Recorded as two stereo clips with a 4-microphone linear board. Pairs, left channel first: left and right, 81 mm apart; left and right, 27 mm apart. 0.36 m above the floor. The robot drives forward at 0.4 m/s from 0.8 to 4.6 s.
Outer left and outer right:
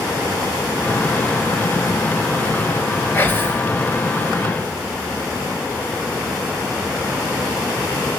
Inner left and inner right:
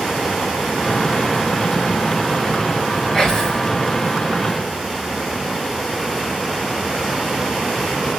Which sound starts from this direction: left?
Whispering, at 3.1 s.